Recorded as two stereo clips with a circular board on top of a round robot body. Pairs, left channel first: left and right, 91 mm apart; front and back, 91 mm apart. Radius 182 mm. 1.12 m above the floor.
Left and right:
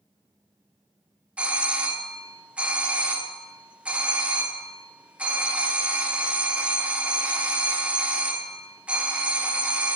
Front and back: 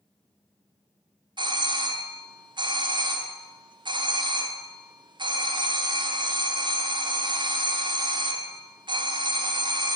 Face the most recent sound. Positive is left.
turn(degrees=-165)